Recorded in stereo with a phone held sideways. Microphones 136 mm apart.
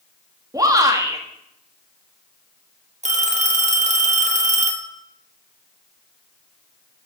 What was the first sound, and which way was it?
A shout, 25° right (ahead or behind).